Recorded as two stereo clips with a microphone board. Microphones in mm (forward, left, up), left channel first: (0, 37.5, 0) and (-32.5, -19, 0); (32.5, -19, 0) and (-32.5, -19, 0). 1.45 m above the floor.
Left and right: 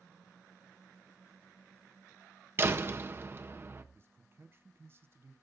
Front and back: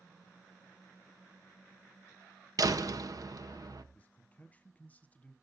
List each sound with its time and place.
2.6 s a door slam: 170° right, 1.0 m
3.9 s a man speaking: 70° right, 1.2 m